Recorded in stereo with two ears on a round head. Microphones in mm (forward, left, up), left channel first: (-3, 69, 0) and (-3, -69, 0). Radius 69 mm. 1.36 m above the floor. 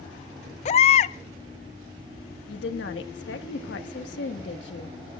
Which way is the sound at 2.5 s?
85° left.